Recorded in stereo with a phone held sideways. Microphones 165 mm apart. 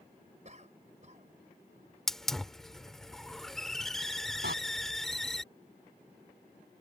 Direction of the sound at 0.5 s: 45° right (ahead or behind).